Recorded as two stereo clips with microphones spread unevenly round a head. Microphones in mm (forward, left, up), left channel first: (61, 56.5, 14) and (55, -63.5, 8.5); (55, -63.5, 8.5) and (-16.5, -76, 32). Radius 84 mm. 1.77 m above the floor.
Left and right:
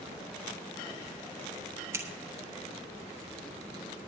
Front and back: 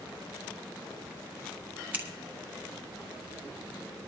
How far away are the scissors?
About 1.3 m.